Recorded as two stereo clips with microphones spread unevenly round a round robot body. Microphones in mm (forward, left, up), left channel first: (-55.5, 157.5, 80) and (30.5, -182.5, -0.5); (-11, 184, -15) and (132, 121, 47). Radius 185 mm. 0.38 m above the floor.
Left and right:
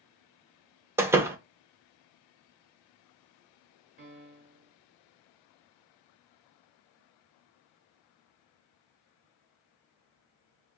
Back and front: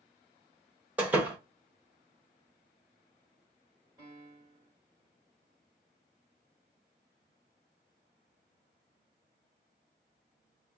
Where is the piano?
110° right, 1.7 m.